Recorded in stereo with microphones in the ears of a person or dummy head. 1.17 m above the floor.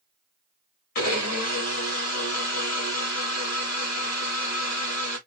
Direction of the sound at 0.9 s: 50° left (ahead or behind).